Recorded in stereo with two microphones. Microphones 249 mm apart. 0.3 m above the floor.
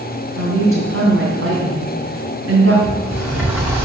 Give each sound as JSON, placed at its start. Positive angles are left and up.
{"t": 0.4, "sound": "a woman speaking", "side_deg": -65, "distance_m": 2.5}
{"t": 2.8, "sound": "a sliding door", "side_deg": -5, "distance_m": 6.5}